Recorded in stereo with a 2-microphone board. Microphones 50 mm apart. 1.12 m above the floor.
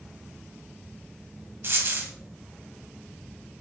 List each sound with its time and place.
1.6 s a dropped coin: 50° right (ahead or behind), 1.7 m